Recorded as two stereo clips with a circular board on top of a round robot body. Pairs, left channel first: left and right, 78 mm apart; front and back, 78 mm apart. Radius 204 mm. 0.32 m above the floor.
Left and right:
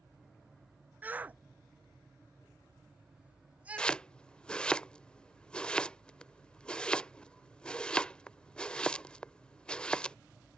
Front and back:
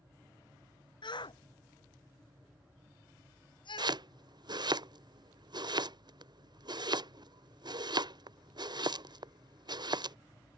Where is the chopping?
165° left.